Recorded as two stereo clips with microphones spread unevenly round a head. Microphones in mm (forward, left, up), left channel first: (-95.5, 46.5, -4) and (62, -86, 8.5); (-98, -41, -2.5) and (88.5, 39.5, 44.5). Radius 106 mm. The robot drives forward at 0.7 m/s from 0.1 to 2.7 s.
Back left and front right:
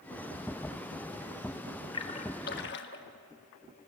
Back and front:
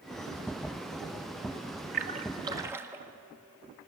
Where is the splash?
70° left, 1.1 m; by 3.0 s 100° left, 1.1 m.